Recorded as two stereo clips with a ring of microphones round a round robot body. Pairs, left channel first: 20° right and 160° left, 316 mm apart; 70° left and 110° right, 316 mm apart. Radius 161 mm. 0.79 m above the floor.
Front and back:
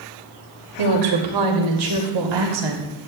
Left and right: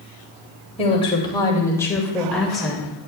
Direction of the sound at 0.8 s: 140° left.